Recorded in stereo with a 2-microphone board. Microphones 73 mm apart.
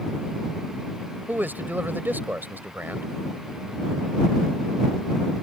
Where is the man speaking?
30° right (ahead or behind).